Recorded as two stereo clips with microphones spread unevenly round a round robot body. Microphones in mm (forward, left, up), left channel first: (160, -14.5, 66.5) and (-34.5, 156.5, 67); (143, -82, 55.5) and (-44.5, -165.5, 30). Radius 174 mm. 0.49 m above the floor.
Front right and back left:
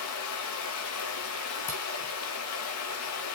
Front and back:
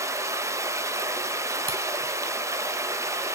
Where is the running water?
80° right, 1.0 m.